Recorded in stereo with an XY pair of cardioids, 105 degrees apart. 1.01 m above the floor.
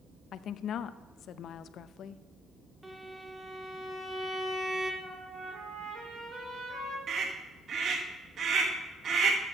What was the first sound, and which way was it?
A woman speaking, 65° left.